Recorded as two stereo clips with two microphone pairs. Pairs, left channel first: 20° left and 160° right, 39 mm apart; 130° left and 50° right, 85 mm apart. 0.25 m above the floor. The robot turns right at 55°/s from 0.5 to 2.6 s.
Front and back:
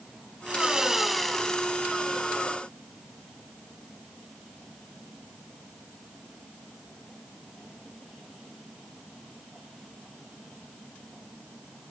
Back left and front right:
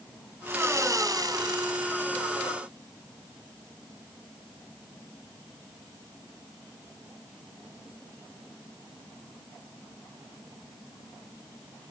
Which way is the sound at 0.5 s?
100° right.